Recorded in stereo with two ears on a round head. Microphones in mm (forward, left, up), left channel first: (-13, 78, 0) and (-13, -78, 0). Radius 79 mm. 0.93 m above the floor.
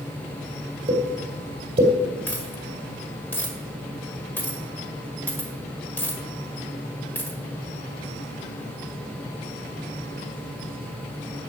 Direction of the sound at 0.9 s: 35° right (ahead or behind).